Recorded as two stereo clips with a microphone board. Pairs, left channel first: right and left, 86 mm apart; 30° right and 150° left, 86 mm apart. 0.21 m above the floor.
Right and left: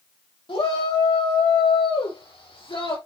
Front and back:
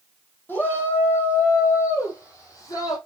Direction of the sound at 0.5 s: 95° right.